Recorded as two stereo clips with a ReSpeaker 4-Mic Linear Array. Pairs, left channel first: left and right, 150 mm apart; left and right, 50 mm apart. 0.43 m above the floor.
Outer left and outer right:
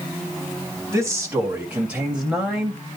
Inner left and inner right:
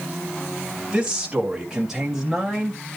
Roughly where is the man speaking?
Centre.